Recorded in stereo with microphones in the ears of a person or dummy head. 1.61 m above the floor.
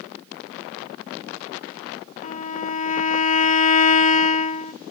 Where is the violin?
35° left (ahead or behind), 0.6 m.